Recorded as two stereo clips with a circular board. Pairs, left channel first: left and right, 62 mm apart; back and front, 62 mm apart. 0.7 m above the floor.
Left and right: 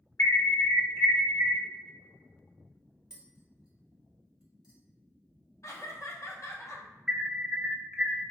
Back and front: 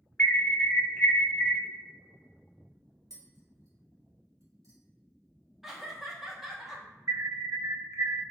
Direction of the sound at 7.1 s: 15° right.